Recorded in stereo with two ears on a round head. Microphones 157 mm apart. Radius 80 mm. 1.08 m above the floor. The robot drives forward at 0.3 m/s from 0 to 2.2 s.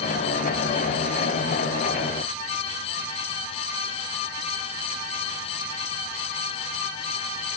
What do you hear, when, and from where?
Only background noise.